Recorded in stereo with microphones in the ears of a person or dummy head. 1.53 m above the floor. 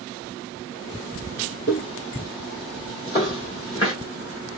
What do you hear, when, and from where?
1.7 s footsteps: 20° left (ahead or behind), 1.6 m; by 3.9 s 25° left (ahead or behind), 2.5 m